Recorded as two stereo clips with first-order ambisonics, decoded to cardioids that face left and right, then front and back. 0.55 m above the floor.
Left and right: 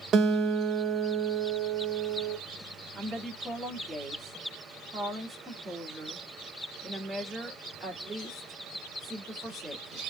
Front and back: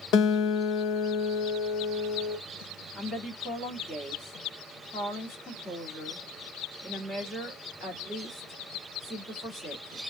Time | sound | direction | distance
0.1 | a guitar | 35° right | 0.7 m
3.0 | a woman speaking | 40° right | 1.4 m